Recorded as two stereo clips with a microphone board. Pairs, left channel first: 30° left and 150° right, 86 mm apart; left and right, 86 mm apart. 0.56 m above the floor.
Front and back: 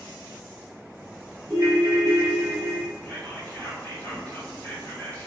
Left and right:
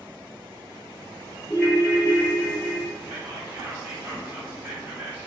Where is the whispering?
30° right, 1.8 m.